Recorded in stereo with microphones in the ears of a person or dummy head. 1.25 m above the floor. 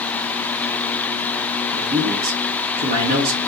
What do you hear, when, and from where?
1.7 s a man speaking: 45° right (ahead or behind), 1.1 m